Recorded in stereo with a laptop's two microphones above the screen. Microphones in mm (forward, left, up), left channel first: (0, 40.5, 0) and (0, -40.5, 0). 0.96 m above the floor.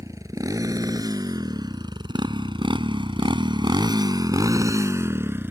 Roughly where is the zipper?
No zipper in this recording.